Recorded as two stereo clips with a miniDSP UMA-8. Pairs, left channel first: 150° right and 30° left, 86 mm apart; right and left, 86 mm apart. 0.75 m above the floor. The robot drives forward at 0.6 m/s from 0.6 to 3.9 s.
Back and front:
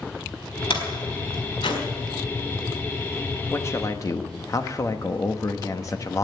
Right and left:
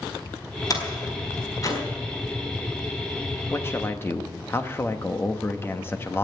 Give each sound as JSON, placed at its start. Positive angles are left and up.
{"t": 0.7, "sound": "a door slam", "azimuth_deg": -135, "distance_m": 4.0}
{"t": 3.5, "sound": "a man speaking", "azimuth_deg": -115, "distance_m": 0.9}